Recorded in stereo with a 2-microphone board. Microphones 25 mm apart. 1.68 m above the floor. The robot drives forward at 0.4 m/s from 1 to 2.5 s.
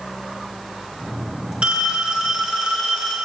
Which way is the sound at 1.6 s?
40° right (ahead or behind).